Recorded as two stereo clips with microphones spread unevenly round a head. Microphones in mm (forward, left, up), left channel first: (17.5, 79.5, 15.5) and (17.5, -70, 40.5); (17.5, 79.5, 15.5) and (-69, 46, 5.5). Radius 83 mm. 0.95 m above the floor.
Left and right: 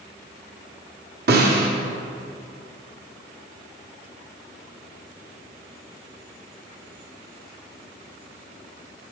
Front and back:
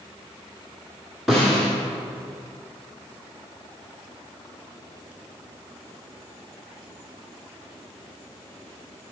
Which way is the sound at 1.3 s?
70° right.